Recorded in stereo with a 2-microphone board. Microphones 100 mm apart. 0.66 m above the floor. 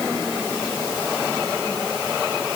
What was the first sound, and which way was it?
Only background noise.